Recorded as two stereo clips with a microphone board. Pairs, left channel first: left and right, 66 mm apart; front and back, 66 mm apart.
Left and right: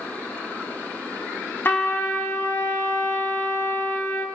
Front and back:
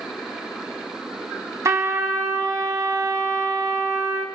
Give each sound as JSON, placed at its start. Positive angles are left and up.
{"t": 1.6, "sound": "a trumpet", "azimuth_deg": 145, "distance_m": 1.0}